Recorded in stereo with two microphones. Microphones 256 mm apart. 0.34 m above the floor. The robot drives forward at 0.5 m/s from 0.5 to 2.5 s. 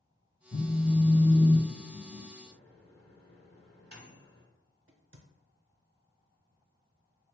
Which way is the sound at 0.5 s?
45° left (ahead or behind).